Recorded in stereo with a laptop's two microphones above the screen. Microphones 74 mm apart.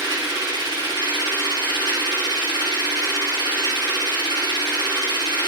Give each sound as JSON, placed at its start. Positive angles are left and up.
{"t": 0.0, "sound": "a machine running", "side_deg": -85, "distance_m": 3.0}